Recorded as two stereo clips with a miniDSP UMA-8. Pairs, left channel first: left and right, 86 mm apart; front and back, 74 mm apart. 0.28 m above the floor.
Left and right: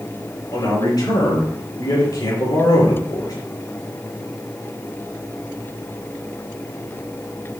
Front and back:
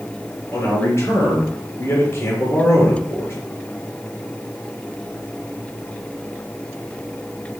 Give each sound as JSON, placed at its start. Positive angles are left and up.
{"t": 0.5, "sound": "a man speaking", "azimuth_deg": 55, "distance_m": 3.5}